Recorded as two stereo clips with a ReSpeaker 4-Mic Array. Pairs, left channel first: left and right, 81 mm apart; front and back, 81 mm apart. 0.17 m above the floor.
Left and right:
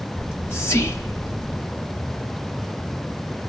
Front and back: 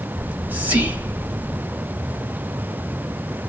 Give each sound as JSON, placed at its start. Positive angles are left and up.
{"t": 0.2, "sound": "whispering", "azimuth_deg": 125, "distance_m": 1.3}